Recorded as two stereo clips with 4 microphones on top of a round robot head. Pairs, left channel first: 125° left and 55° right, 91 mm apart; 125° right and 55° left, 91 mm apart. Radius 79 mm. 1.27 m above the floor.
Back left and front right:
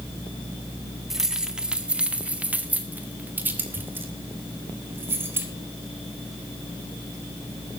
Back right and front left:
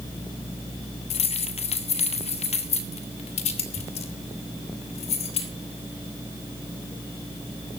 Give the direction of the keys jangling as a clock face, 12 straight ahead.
5 o'clock.